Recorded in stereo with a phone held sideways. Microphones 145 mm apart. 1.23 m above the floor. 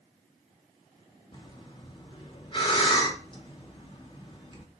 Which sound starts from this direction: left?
Breathing, at 1.3 s.